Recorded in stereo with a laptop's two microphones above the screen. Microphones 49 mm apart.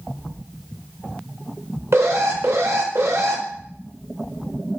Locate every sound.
1.9 s an alarm: 65° right (ahead or behind), 0.6 m